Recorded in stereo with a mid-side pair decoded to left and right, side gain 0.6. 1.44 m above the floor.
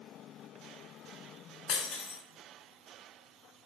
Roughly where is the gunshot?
No gunshot in this recording.